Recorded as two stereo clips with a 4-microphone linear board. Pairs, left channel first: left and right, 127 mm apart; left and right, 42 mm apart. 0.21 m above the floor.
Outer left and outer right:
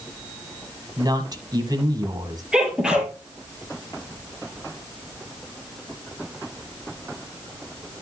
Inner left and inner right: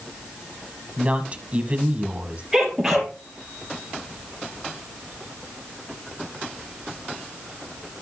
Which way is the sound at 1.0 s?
35° right (ahead or behind).